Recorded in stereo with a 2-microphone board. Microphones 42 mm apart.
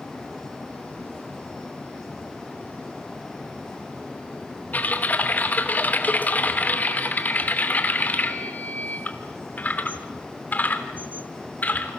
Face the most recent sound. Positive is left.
turn(degrees=40)  # may be behind; listen again after turning